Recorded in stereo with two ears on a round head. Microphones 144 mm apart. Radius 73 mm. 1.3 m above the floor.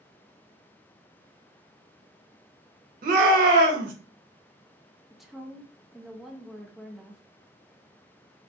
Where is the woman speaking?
Centre (ahead or behind), 0.5 m.